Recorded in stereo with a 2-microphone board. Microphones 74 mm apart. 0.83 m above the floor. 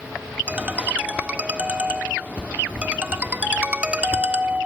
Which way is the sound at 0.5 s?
15° right (ahead or behind).